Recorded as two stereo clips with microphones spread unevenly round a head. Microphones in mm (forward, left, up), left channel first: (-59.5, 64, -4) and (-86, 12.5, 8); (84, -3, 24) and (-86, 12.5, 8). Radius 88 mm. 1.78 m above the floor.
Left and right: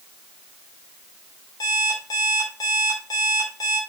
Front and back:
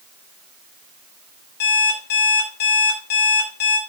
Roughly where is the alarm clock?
Ahead.